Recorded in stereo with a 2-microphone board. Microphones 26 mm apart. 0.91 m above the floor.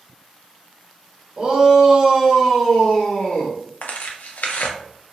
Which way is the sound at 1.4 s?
40° right (ahead or behind).